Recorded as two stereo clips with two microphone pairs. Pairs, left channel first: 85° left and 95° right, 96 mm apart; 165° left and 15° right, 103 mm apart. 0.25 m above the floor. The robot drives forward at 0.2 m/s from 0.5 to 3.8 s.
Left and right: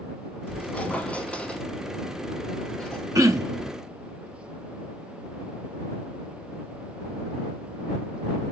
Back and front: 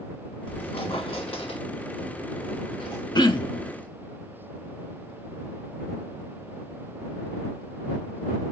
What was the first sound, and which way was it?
A squeak, 160° left.